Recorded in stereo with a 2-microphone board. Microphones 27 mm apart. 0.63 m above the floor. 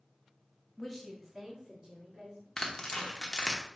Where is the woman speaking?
20° left (ahead or behind), 0.8 m; by 2.5 s 20° right (ahead or behind), 2 m.